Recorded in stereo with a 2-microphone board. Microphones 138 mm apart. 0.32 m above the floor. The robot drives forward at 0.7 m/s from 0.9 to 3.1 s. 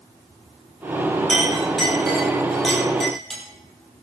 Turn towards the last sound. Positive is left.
turn(degrees=0)  # may be behind; listen again after turning